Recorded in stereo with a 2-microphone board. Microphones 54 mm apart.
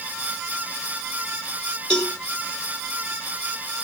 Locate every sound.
1.9 s a cowbell: 10° left (ahead or behind), 3 m